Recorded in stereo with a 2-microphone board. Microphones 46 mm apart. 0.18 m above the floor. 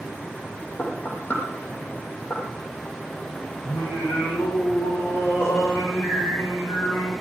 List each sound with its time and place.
0.8 s knocking: 30° left (ahead or behind), 6 m
3.6 s singing: 55° left (ahead or behind), 8 m